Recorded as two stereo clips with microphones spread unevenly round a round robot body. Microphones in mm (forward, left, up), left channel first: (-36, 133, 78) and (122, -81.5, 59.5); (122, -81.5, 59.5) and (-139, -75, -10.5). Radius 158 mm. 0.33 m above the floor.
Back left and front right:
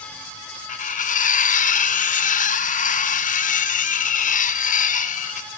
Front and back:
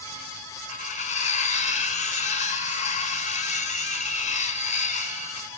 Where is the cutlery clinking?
70° left, 0.6 m.